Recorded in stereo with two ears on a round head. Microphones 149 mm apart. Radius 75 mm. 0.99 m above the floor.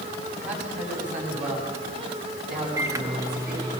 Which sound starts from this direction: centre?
A microwave, at 2.8 s.